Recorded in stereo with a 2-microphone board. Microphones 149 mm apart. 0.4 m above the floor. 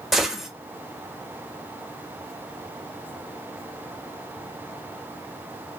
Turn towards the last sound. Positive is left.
turn(degrees=0)  # may be behind; listen again after turning